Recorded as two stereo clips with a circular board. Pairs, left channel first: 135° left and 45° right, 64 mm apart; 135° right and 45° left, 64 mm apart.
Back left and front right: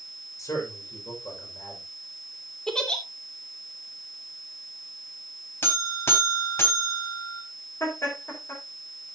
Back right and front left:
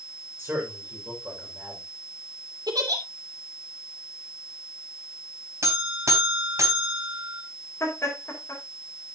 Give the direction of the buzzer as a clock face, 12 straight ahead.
9 o'clock.